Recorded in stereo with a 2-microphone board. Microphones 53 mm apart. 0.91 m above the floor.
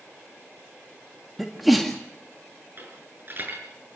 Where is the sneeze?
5° right (ahead or behind), 1.8 m.